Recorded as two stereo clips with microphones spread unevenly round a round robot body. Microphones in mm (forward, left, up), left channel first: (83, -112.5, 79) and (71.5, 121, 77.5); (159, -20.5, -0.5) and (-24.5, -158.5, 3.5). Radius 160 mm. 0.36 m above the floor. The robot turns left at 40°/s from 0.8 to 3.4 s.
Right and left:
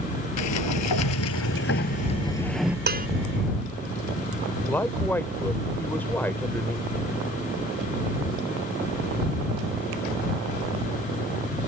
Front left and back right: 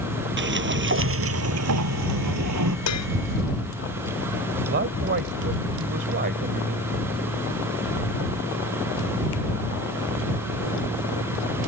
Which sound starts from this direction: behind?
A man speaking, at 4.7 s.